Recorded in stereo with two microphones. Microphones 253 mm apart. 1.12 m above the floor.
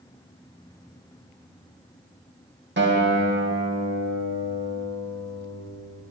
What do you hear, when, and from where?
2.8 s a guitar: 45° right (ahead or behind), 1.0 m